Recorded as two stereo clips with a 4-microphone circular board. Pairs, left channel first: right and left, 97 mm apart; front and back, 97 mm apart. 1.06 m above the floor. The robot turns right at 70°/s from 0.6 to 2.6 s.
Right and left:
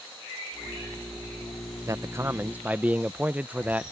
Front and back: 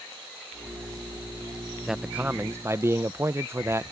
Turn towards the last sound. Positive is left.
turn(degrees=150)